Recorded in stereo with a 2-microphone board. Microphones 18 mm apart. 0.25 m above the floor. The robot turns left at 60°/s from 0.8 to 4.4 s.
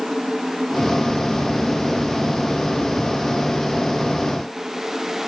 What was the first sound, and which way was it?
Only background noise.